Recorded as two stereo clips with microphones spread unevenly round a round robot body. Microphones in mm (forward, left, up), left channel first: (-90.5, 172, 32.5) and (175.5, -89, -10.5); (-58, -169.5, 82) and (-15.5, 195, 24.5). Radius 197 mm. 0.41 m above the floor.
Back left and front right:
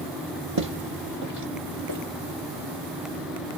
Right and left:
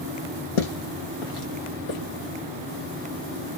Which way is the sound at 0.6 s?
95° right.